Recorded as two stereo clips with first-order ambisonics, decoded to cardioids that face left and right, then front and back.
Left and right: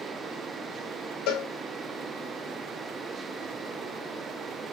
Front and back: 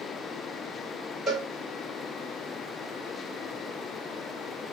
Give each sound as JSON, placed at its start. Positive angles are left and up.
{"t": 1.3, "sound": "a cowbell", "azimuth_deg": 100, "distance_m": 3.0}